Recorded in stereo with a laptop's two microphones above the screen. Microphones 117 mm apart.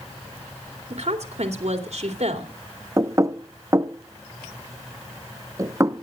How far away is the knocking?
About 0.7 m.